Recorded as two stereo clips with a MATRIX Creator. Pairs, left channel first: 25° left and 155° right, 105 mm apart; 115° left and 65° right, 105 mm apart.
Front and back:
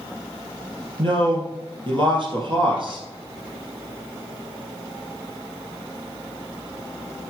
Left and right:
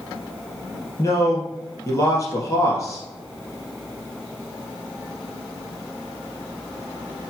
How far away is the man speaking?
About 3 m.